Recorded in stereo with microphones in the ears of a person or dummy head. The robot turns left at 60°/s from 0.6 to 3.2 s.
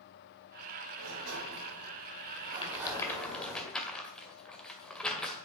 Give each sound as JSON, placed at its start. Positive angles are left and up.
{"t": 1.0, "sound": "a sliding door", "azimuth_deg": -65, "distance_m": 4.0}
{"t": 2.6, "sound": "a rattle", "side_deg": 30, "distance_m": 1.9}